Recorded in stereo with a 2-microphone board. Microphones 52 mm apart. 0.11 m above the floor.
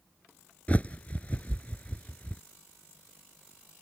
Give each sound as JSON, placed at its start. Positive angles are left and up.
{"t": 0.7, "sound": "a bird", "side_deg": 25}